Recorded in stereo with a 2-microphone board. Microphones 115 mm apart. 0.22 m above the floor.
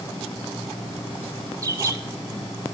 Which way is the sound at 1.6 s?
30° right (ahead or behind).